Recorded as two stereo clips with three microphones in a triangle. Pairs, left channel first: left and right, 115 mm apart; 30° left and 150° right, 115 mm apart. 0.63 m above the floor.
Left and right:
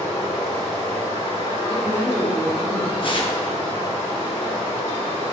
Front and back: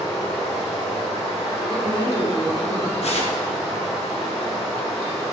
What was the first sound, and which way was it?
Running water, 115° left.